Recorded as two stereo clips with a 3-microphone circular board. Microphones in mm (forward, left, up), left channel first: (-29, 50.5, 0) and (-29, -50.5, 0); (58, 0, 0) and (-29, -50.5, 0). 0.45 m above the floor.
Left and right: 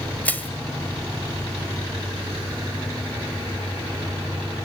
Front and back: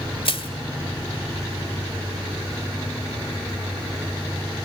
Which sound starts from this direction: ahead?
Crushing, at 0.2 s.